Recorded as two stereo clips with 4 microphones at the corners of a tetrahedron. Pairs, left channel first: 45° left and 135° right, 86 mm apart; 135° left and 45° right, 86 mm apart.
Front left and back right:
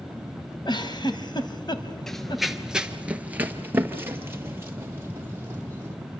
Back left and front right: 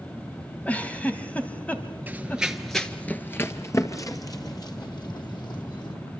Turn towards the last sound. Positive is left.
turn(degrees=165)